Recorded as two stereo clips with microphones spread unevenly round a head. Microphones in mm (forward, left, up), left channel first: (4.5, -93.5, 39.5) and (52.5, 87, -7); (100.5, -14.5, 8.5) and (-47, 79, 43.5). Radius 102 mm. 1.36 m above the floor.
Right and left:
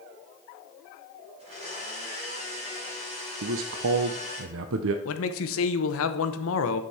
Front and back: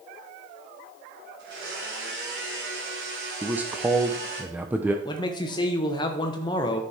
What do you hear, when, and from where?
1.4 s a blender: 140° left, 4 m
3.4 s a man speaking: 65° left, 0.6 m
5.0 s a man speaking: 105° right, 0.9 m